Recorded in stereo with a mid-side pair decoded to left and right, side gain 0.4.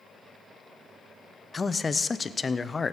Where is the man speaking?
35° left, 0.6 m.